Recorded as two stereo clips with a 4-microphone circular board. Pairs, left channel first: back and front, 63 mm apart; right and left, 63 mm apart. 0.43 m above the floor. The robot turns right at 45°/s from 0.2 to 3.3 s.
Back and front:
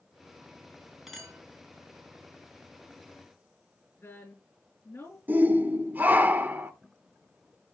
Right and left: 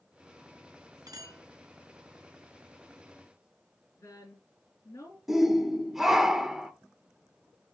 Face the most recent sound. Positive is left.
turn(degrees=10)